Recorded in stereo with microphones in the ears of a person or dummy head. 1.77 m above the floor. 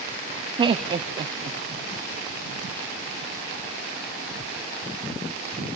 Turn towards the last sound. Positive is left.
turn(degrees=-25)  # may be behind; listen again after turning